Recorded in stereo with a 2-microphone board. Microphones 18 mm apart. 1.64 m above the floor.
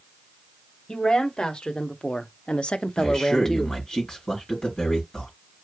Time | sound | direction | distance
0.9 | a woman speaking | 45° left (ahead or behind) | 1.6 m
3.0 | a man speaking | 50° left (ahead or behind) | 4.5 m